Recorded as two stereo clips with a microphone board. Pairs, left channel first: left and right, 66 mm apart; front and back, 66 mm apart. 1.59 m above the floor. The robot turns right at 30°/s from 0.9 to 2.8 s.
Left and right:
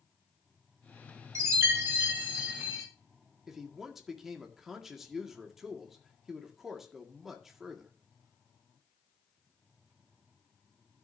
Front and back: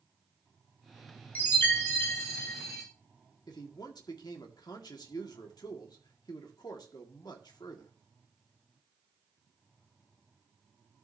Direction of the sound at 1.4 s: 60° right.